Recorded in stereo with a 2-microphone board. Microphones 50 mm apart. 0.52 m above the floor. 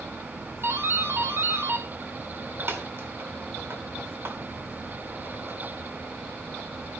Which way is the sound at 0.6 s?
55° right (ahead or behind).